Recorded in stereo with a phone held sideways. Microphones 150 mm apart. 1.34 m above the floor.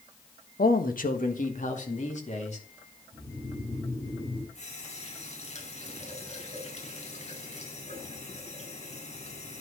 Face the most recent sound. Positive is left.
turn(degrees=50)  # may be behind; listen again after turning